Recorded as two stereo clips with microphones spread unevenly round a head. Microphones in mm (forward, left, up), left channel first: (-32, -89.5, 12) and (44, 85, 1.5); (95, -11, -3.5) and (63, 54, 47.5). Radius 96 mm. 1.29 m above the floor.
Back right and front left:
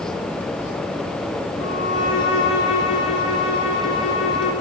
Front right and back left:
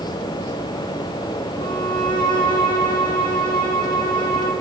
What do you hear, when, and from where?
1.6 s a violin: 85° right, 4 m